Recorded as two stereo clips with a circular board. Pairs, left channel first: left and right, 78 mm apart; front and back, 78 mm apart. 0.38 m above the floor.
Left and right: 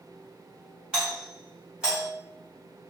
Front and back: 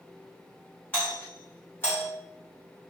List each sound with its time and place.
0.9 s a doorbell: 25° right, 1.8 m